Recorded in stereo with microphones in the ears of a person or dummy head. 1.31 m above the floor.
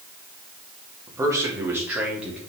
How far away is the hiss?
I don't hear a hiss.